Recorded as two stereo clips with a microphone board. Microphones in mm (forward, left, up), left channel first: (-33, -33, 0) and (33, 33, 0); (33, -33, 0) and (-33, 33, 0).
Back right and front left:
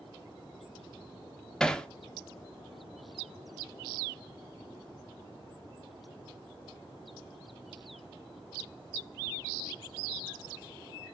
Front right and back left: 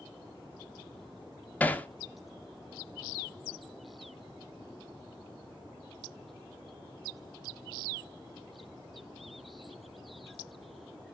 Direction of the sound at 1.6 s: 70° right.